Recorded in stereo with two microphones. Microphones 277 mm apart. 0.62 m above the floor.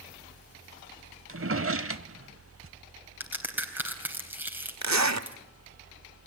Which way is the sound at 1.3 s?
50° right (ahead or behind).